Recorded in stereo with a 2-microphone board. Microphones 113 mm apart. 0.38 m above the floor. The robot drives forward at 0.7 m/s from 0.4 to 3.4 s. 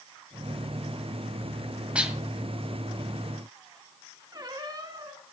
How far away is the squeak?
About 1.3 m.